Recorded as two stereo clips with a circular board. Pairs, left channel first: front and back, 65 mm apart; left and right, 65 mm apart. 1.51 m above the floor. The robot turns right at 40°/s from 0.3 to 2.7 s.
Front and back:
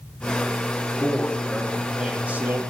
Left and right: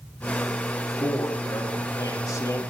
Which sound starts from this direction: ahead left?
A man speaking, at 1.0 s.